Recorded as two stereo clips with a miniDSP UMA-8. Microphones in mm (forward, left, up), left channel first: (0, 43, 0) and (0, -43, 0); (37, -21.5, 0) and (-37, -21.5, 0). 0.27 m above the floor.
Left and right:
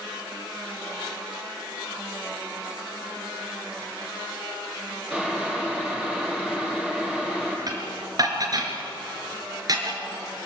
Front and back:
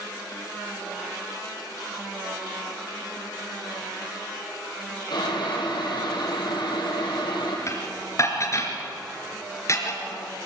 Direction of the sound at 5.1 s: 10° right.